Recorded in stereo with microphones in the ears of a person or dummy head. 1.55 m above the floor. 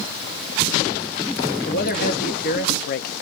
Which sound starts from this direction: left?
A man speaking, at 1.7 s.